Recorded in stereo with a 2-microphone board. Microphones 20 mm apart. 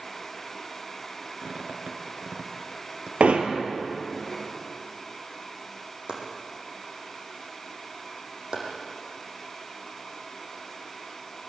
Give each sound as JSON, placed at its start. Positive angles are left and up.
{"t": 1.4, "sound": "a squeak", "side_deg": -55, "distance_m": 2.5}
{"t": 3.2, "sound": "hammering", "side_deg": -80, "distance_m": 2.5}
{"t": 6.1, "sound": "chopping", "side_deg": -55, "distance_m": 6.0}